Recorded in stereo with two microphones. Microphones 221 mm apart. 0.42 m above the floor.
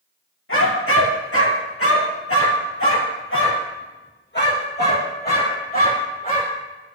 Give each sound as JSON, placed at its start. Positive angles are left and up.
{"t": 0.5, "sound": "a dog barking", "side_deg": 70, "distance_m": 3.0}